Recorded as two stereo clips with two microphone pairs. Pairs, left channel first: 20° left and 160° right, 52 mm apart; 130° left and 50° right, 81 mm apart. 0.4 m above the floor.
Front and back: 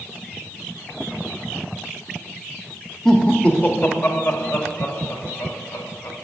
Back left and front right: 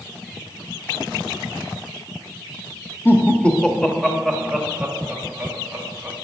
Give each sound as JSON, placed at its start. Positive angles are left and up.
{"t": 3.0, "sound": "laughter", "azimuth_deg": 95, "distance_m": 1.1}